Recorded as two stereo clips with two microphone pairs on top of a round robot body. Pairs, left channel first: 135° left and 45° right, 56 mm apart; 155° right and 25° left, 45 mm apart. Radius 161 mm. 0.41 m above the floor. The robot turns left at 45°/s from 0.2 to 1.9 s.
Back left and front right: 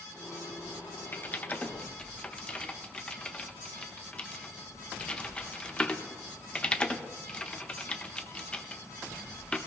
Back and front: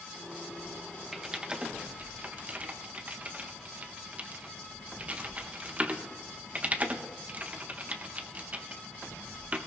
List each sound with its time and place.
1.1 s typing on a keyboard: 115° left, 1.3 m; by 9.6 s 80° left, 1.3 m